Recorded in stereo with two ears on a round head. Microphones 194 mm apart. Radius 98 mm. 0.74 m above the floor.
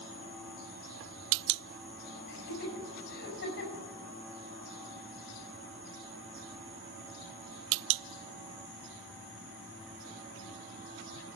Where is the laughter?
45° left (ahead or behind), 6.5 m.